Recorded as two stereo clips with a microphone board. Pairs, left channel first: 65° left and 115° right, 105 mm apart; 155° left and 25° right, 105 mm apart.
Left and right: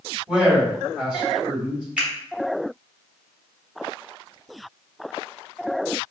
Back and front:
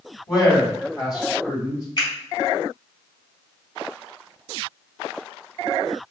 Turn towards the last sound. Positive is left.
turn(degrees=175)